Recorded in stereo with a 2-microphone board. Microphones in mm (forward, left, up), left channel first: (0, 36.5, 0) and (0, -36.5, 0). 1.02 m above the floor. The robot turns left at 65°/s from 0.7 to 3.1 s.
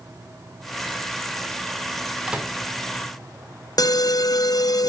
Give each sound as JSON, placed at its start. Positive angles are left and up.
{"t": 2.3, "sound": "a microwave", "side_deg": -10, "distance_m": 2.0}
{"t": 3.8, "sound": "an alarm", "side_deg": 60, "distance_m": 0.6}